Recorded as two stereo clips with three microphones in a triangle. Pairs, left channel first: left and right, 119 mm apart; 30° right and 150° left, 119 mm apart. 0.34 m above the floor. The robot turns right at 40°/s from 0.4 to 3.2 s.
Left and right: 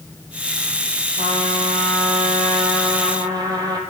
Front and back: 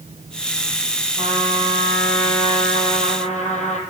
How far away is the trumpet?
About 2 m.